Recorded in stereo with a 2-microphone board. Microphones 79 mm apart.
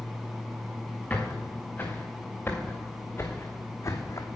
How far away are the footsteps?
About 3.5 m.